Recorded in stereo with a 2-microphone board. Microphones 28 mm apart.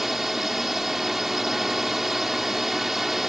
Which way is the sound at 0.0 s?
10° right (ahead or behind).